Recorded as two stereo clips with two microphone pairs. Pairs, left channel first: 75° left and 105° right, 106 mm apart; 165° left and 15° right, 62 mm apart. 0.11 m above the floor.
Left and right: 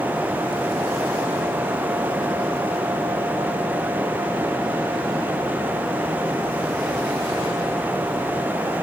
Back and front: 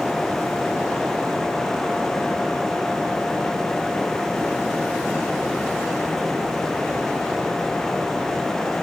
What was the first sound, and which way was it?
Only background noise.